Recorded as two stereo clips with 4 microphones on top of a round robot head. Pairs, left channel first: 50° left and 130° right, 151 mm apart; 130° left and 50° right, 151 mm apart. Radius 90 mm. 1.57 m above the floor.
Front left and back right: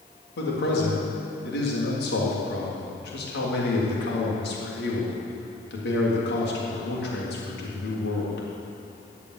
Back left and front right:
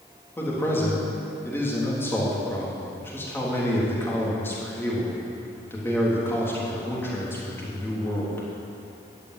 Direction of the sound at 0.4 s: 55° left.